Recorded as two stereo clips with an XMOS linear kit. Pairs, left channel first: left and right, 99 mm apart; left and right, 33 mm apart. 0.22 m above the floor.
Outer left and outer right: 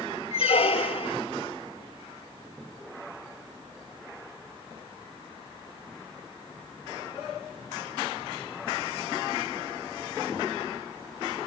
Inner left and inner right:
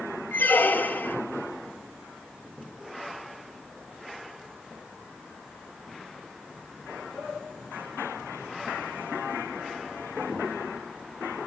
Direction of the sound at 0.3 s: 85° left.